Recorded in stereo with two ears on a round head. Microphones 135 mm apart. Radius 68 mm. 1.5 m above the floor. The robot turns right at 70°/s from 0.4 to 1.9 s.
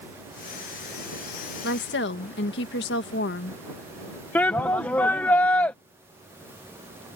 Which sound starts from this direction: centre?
A shout, at 4.3 s.